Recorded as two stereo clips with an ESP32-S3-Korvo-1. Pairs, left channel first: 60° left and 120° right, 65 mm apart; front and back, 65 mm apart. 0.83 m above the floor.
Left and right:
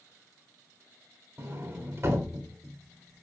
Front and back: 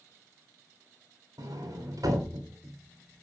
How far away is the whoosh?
I don't hear a whoosh.